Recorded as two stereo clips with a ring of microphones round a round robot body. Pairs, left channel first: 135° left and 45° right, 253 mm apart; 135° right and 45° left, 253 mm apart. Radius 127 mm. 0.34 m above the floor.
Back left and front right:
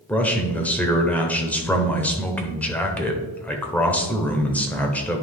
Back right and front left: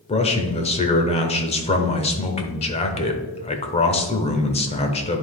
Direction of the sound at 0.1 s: 150° right.